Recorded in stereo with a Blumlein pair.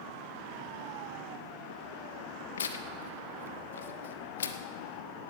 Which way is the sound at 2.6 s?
65° left.